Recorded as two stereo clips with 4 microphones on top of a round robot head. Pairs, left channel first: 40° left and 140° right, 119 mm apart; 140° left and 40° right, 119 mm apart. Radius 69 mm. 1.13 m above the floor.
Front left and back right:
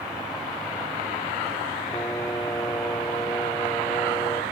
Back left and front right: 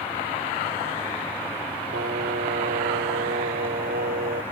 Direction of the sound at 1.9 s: 35° right.